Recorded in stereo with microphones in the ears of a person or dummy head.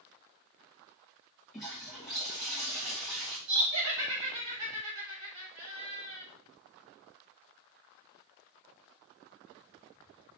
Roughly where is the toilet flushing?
Centre.